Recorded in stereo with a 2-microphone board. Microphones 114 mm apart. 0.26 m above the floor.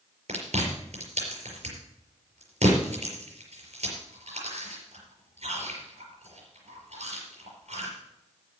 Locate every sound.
0.3 s chewing: 75° right (ahead or behind), 5 m